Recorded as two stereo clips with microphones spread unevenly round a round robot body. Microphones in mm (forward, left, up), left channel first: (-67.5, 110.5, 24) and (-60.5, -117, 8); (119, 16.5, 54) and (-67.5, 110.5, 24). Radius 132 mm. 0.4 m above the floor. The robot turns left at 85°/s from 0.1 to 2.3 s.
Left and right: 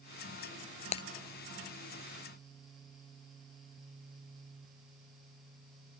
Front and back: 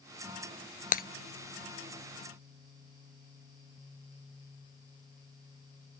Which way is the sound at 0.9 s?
25° left.